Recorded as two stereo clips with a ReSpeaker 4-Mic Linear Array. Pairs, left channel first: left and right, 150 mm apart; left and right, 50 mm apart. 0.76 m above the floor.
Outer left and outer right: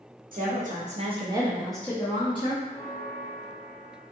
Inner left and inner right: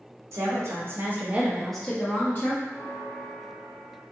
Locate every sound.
0.3 s a woman speaking: 65° right (ahead or behind), 1.0 m; by 2.5 s 40° left (ahead or behind), 0.9 m
2.6 s a bell: 20° left (ahead or behind), 1.6 m